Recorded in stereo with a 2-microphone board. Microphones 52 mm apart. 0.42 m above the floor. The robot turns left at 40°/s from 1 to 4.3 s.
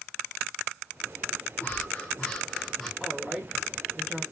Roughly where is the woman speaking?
Ahead.